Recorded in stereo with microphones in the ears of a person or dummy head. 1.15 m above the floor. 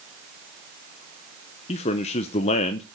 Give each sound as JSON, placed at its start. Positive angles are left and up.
{"t": 1.7, "sound": "a man speaking", "side_deg": 35, "distance_m": 0.6}